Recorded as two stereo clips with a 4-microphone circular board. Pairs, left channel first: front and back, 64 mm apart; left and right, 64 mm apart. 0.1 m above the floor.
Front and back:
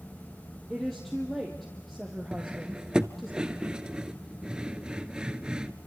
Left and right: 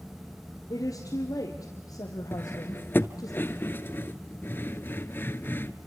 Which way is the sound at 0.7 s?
90° left.